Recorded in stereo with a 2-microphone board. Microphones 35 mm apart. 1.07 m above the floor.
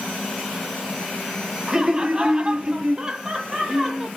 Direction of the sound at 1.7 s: 15° right (ahead or behind).